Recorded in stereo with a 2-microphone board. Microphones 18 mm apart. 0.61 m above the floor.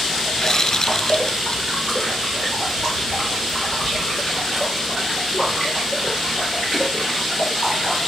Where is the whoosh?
30° left (ahead or behind).